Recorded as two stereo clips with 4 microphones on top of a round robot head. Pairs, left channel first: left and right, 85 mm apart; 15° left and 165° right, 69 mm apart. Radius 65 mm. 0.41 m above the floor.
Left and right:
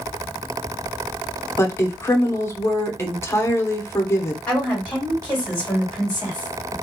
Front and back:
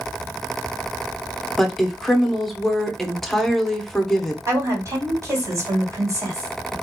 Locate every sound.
1.6 s a woman speaking: 95° left, 0.8 m
4.5 s a woman speaking: 170° left, 2 m